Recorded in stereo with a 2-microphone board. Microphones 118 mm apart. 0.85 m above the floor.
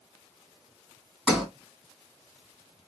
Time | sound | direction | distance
1.3 | a sliding door | centre (ahead or behind) | 1.6 m